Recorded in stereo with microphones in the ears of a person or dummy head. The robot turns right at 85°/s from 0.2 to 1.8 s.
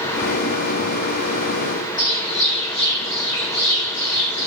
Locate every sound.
2.0 s a bird: 70° left (ahead or behind), 1.8 m